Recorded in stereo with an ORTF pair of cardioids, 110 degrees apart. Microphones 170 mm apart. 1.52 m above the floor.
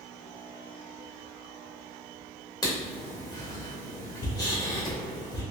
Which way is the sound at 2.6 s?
20° left.